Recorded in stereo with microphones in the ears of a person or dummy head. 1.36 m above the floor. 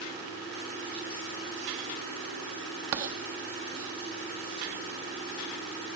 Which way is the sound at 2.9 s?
25° right (ahead or behind).